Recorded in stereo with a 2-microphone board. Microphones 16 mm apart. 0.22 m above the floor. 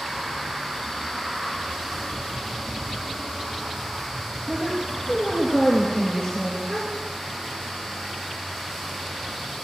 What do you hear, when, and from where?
4.5 s a woman speaking: 35° left (ahead or behind), 4.5 m
6.7 s a gasp: 35° left (ahead or behind), 9.5 m